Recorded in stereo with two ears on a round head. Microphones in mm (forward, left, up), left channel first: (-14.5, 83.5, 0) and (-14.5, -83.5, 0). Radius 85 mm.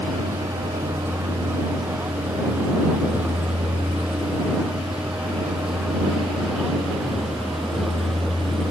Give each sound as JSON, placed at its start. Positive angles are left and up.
{"t": 0.0, "sound": "a vehicle", "side_deg": -10}